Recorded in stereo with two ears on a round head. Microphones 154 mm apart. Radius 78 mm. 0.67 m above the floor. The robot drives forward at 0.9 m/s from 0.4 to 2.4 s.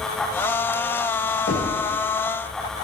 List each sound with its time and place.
1.5 s knocking: 80° left, 2.5 m